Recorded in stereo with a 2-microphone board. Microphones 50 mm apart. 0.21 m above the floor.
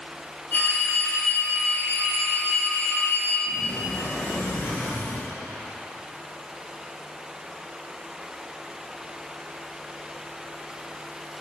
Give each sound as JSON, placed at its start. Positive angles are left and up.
{"t": 0.5, "sound": "a phone ringing", "side_deg": 40, "distance_m": 2.0}
{"t": 3.5, "sound": "a sliding door", "side_deg": 50, "distance_m": 3.5}